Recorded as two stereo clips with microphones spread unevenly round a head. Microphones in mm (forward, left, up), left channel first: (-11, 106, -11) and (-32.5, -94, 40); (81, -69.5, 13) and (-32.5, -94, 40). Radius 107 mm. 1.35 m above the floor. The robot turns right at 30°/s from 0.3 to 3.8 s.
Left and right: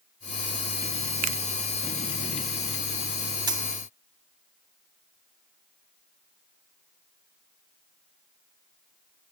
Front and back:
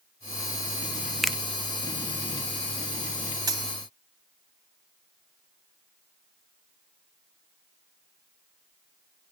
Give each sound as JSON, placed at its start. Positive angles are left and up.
{"t": 1.2, "sound": "a finger snap", "azimuth_deg": -70, "distance_m": 0.5}
{"t": 3.5, "sound": "a dropped coin", "azimuth_deg": -145, "distance_m": 1.6}